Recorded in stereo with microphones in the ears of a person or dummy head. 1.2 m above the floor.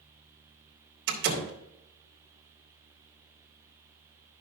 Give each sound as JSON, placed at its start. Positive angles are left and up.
{"t": 1.1, "sound": "a door slam", "side_deg": -65, "distance_m": 3.0}